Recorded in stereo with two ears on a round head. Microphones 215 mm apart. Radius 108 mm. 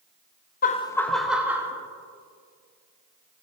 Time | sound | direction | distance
0.6 | laughter | 35° left (ahead or behind) | 0.5 m